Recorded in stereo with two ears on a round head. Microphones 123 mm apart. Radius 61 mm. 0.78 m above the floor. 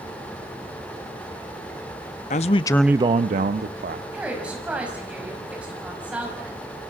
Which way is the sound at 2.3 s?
55° left (ahead or behind).